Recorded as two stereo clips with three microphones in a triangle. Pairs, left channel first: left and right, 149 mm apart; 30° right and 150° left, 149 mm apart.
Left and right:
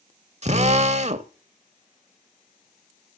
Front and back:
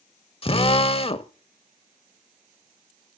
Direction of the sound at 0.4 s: 70° right.